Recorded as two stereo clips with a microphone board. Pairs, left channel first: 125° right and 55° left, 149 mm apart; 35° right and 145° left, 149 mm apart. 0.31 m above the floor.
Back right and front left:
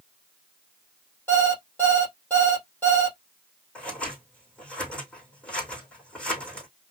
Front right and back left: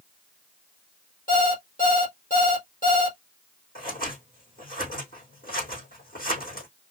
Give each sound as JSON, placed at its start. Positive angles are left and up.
{"t": 1.3, "sound": "an alarm clock", "azimuth_deg": -45, "distance_m": 3.5}
{"t": 3.8, "sound": "scissors", "azimuth_deg": -40, "distance_m": 4.0}